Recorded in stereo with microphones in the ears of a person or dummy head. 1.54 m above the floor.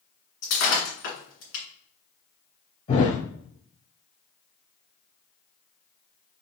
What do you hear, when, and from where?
0.4 s breaking glass: 55° left (ahead or behind), 2.5 m
2.9 s a thud: 40° left (ahead or behind), 1.8 m